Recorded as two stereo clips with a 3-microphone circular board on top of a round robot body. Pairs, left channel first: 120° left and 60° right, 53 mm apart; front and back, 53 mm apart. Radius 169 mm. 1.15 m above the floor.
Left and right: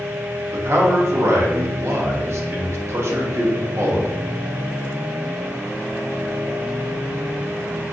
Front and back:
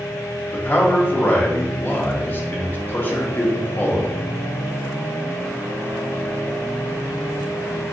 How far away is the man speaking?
About 0.8 m.